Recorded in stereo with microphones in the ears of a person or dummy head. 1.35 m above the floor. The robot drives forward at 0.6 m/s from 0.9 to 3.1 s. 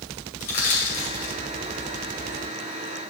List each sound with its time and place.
0.4 s crushing: 45° left (ahead or behind), 2.5 m; by 1.3 s 40° left (ahead or behind), 2.5 m